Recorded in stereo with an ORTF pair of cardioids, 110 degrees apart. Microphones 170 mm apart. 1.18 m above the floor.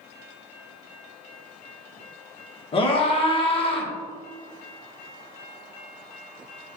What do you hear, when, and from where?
2.7 s a scream: 35° left, 1.4 m